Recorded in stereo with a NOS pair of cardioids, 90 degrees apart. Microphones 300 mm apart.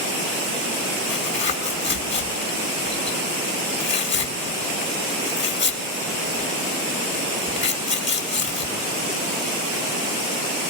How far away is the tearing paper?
About 2.5 m.